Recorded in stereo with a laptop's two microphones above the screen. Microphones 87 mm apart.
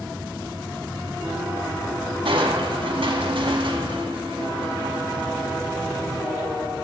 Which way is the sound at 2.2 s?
75° right (ahead or behind).